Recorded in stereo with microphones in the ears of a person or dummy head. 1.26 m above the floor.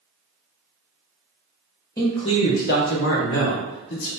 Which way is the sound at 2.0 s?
20° left (ahead or behind).